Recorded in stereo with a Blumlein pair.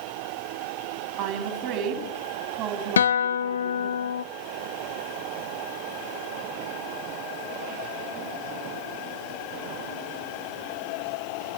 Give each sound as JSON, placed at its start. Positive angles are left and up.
{"t": 1.2, "sound": "a woman speaking", "azimuth_deg": -30, "distance_m": 7.0}
{"t": 3.0, "sound": "a guitar", "azimuth_deg": 65, "distance_m": 0.8}